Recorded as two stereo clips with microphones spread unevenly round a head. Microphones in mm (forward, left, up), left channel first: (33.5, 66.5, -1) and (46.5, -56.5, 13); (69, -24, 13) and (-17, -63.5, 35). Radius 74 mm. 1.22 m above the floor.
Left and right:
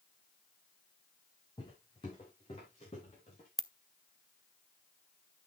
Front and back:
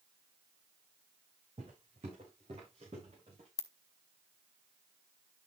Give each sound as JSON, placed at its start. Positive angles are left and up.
{"t": 1.6, "sound": "footsteps", "azimuth_deg": 160, "distance_m": 3.5}
{"t": 3.6, "sound": "a ringtone", "azimuth_deg": -5, "distance_m": 0.7}